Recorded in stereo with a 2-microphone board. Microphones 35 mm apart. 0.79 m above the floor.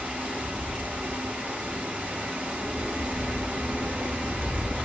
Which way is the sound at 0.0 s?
50° right (ahead or behind).